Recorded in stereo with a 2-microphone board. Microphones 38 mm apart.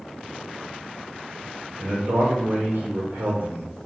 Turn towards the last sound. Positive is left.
turn(degrees=-75)  # may be behind; listen again after turning